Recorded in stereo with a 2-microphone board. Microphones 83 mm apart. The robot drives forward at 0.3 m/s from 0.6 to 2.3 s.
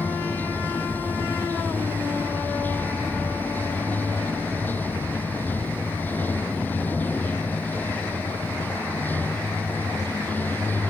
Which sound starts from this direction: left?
Running water, at 0.0 s.